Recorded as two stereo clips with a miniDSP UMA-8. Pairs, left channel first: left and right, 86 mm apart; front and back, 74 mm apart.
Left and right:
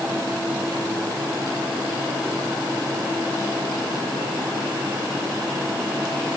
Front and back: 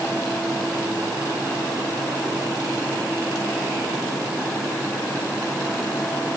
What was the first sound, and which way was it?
Only background noise.